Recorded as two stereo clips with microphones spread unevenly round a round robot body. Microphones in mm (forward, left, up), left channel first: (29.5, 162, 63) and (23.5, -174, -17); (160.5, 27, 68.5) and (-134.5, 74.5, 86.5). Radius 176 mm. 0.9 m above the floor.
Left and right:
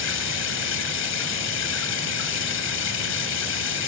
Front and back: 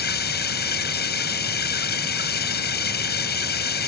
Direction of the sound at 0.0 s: 50° left.